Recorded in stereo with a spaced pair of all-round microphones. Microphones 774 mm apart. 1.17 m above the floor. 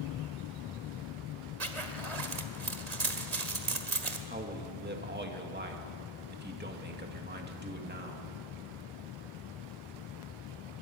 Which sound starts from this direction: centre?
A man speaking, at 4.3 s.